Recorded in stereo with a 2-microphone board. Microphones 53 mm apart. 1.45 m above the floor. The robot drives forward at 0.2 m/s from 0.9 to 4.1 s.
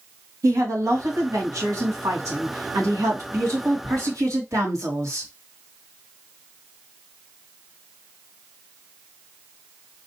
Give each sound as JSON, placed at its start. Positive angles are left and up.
{"t": 0.4, "sound": "a woman speaking", "side_deg": -85, "distance_m": 2.5}